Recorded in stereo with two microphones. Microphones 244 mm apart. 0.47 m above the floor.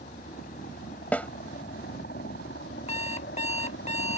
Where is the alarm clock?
25° left (ahead or behind).